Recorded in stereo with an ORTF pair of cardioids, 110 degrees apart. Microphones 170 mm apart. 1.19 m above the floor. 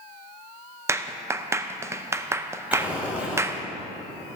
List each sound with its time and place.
0.9 s a clap: 15° right, 0.6 m
2.7 s an explosion: 5° right, 4 m